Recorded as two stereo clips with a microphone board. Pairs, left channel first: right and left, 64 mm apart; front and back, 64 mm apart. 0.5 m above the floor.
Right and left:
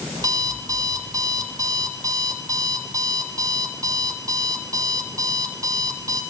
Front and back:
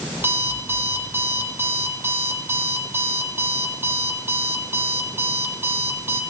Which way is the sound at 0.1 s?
125° left.